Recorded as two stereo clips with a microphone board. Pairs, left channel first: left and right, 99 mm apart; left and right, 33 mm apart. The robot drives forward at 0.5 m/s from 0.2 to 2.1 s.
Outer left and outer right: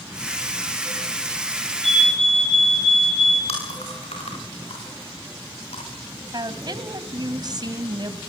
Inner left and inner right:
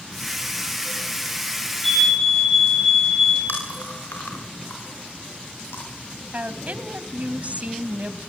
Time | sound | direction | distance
1.8 | a fire alarm | 10° left (ahead or behind) | 10 m
3.5 | chewing | 90° left | 8.5 m
6.3 | a woman speaking | 45° right (ahead or behind) | 1.5 m